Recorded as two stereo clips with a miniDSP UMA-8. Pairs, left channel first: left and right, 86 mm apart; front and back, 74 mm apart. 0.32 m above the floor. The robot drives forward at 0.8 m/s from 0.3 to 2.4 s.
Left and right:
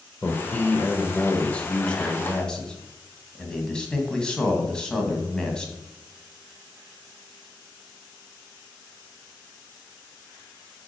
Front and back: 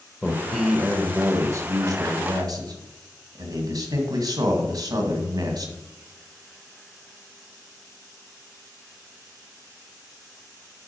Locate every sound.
0.2 s a man speaking: 55° left, 0.9 m; by 5.7 s 170° left, 1.7 m